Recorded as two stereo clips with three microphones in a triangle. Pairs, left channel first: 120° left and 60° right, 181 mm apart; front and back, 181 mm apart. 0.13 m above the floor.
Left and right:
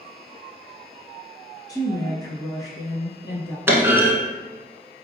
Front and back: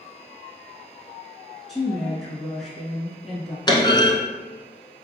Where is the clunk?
Straight ahead, 0.8 m.